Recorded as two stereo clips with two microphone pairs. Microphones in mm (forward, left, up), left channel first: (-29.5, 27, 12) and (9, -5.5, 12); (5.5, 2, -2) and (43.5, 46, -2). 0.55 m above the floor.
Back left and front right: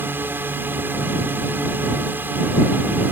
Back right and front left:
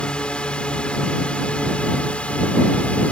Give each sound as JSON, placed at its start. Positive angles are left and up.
{"t": 0.0, "sound": "a drone", "azimuth_deg": -60}